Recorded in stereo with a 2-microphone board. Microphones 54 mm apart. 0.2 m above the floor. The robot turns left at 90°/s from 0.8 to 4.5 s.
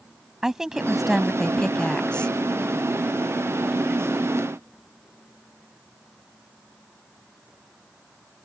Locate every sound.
0.4 s a woman speaking: 10° right (ahead or behind); by 2.4 s 20° left (ahead or behind)